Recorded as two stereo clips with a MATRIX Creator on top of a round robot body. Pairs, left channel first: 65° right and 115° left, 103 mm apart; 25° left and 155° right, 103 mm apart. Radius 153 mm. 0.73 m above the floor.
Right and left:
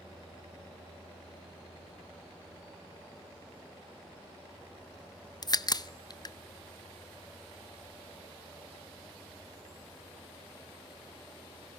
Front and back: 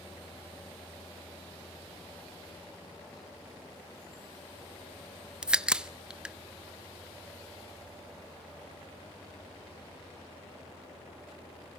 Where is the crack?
80° right, 0.8 m.